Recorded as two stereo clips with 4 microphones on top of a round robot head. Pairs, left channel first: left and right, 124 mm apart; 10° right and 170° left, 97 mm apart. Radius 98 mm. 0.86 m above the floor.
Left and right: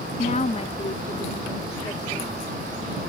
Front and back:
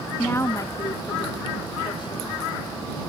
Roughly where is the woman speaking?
Ahead left.